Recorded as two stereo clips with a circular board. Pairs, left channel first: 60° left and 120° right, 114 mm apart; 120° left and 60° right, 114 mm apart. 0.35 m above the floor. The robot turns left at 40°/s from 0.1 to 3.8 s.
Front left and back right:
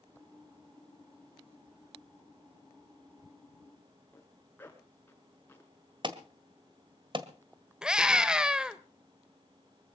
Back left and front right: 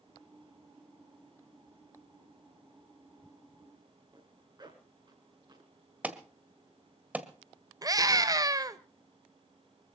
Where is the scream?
40° right, 1.3 m.